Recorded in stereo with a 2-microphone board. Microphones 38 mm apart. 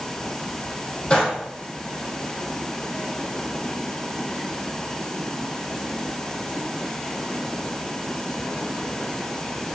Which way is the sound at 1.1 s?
30° left (ahead or behind).